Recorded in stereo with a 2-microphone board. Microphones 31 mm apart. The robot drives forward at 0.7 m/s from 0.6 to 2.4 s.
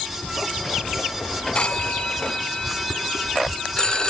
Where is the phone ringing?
40° left (ahead or behind), 0.9 m; by 4.1 s 25° left (ahead or behind), 1.2 m.